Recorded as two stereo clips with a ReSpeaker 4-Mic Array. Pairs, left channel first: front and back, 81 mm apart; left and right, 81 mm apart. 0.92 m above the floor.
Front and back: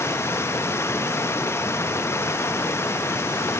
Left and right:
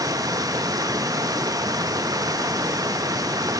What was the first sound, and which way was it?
Running water, 55° right.